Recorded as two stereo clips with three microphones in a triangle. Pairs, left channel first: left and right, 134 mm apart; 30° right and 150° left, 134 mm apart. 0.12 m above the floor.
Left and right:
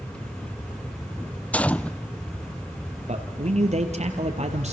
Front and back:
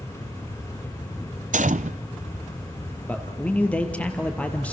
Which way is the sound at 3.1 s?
110° right.